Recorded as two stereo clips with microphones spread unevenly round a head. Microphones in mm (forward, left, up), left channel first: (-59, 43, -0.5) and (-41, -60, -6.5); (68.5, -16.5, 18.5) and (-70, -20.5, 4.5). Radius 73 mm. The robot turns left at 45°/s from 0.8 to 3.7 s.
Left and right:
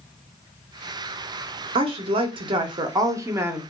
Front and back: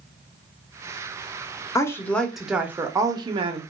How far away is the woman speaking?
About 0.6 m.